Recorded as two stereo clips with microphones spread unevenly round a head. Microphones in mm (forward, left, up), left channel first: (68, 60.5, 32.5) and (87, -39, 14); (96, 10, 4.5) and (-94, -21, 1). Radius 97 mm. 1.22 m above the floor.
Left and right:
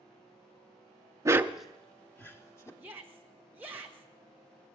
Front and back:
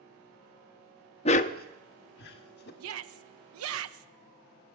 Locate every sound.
1.2 s a dog barking: 25° right, 0.6 m; by 2.7 s 45° left, 1.6 m
2.8 s a shout: 160° right, 1.0 m